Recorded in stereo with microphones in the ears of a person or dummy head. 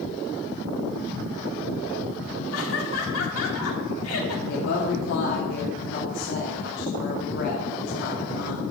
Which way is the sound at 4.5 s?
65° left (ahead or behind).